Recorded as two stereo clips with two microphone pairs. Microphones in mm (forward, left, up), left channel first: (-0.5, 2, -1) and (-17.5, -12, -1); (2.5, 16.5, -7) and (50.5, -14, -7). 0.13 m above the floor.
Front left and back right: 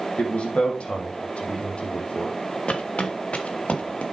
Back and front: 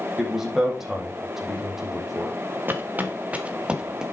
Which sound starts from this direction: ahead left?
A man speaking, at 0.2 s.